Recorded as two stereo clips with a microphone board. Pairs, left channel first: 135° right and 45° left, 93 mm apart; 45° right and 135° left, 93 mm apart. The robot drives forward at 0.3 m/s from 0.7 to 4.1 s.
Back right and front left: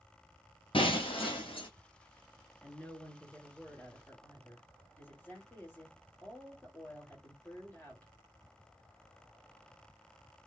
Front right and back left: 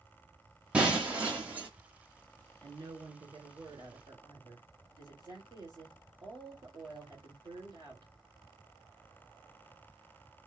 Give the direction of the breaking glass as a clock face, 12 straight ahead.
5 o'clock.